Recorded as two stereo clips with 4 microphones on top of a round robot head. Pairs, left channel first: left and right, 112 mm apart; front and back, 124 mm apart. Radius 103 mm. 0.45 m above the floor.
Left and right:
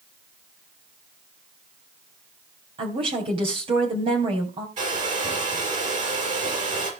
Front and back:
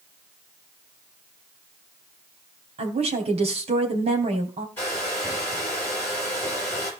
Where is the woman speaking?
135° right, 3 m.